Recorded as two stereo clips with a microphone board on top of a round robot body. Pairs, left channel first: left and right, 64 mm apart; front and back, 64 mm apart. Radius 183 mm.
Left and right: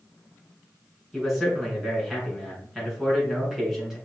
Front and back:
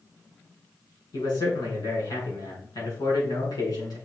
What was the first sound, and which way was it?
A man speaking, 5° right.